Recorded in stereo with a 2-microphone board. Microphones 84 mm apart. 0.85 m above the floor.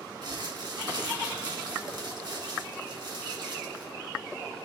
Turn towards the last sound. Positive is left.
turn(degrees=-55)  # may be behind; listen again after turning